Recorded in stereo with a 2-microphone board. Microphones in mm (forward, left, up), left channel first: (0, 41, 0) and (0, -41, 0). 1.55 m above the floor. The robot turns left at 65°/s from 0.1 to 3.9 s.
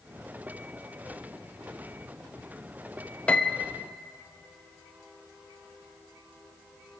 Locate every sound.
3.3 s a piano: 15° left (ahead or behind), 0.8 m; by 3.7 s 5° left (ahead or behind), 0.8 m